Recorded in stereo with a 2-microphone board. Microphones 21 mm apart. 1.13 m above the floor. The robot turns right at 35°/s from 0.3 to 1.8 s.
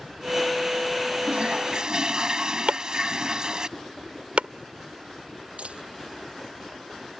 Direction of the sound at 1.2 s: 65° right (ahead or behind).